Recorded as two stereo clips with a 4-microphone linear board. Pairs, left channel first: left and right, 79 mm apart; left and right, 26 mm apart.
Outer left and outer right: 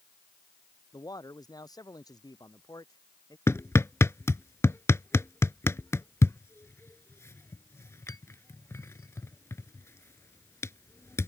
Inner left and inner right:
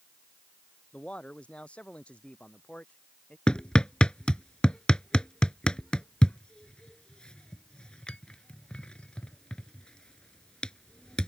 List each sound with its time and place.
0.9 s a man speaking: 55° left (ahead or behind)
3.5 s hammering: 35° left (ahead or behind)